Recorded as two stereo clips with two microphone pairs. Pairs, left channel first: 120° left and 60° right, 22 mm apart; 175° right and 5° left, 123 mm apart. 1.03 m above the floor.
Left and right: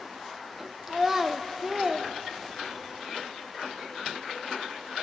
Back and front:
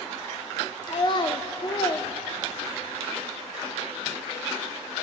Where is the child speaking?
135° right, 0.8 m.